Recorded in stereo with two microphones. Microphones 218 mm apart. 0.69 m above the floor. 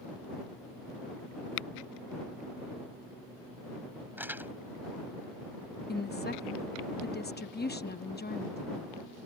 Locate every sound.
4.2 s crumpling: 10° right (ahead or behind)
5.9 s a woman speaking: 50° left (ahead or behind)